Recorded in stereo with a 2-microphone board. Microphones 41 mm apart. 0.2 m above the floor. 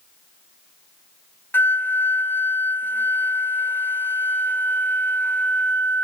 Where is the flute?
55° left (ahead or behind), 0.9 m.